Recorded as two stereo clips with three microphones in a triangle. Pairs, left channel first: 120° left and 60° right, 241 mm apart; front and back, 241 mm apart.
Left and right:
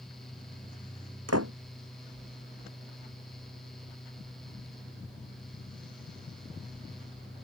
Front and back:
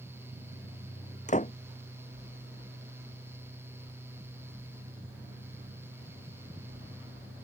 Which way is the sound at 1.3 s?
60° right.